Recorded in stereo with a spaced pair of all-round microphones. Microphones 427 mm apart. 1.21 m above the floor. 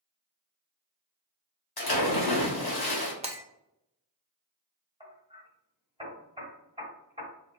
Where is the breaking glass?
15° right (ahead or behind), 0.6 m.